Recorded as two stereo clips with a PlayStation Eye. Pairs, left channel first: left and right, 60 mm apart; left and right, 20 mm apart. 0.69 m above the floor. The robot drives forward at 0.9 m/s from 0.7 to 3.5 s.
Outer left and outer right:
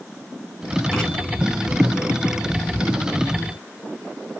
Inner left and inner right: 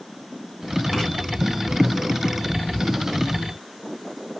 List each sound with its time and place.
0.9 s writing: 5° right (ahead or behind), 3.5 m; by 1.1 s 10° right (ahead or behind), 3 m